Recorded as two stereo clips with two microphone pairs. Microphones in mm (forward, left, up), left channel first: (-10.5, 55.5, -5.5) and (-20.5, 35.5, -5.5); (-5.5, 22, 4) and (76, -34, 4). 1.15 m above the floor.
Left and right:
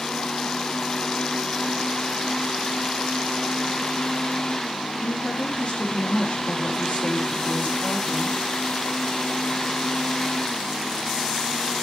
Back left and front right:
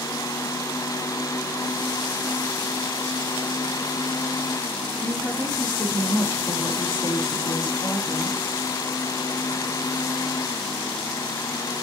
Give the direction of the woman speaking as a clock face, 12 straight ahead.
9 o'clock.